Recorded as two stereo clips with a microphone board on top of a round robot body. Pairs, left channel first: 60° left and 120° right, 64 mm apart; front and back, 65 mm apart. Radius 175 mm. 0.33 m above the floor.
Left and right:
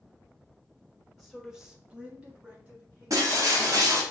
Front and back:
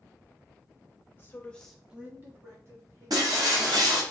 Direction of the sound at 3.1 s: 155° right.